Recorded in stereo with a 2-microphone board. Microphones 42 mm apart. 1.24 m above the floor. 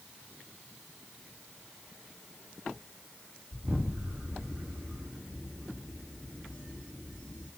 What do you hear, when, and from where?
3.5 s an explosion: 30° right (ahead or behind), 2.5 m